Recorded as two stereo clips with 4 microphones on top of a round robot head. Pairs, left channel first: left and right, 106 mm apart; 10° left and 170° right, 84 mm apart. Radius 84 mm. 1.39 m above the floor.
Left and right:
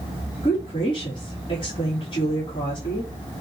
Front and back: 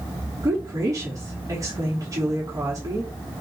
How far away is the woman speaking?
About 3.5 m.